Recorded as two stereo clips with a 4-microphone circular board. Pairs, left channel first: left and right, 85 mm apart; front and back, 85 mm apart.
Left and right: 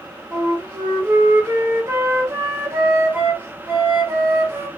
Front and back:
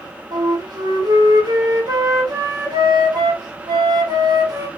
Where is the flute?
150° right, 0.8 m.